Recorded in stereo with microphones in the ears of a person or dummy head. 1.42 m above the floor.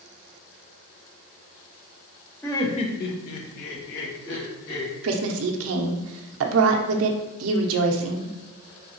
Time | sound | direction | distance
2.4 | laughter | 15° left (ahead or behind) | 0.7 m
5.0 | a woman speaking | 75° right (ahead or behind) | 0.5 m